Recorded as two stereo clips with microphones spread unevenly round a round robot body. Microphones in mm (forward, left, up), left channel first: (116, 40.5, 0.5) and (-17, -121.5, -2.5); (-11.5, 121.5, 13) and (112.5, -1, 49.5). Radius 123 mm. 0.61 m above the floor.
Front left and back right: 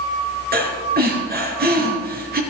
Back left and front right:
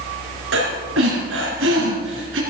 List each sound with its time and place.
0.5 s breathing: 85° right, 3.5 m